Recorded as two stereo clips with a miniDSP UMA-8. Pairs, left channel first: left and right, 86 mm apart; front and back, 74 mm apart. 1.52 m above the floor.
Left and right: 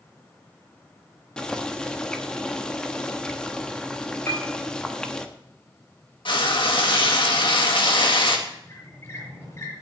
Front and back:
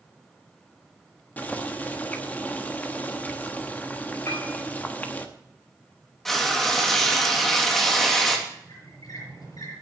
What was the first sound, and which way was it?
Boiling, 25° left.